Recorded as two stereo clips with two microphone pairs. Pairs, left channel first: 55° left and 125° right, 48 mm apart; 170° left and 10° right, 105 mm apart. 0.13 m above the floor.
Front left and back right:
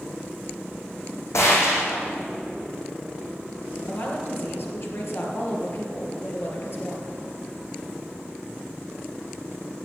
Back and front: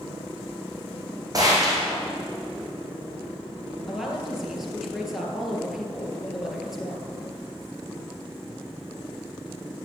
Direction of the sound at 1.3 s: 45° left.